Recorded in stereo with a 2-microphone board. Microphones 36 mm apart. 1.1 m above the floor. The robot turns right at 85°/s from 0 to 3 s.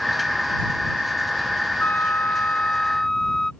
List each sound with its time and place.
1.8 s a flute: 65° left; by 3.5 s 165° left